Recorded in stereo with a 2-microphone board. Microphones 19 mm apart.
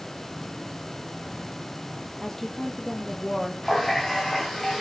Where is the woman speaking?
15° left (ahead or behind), 3 m.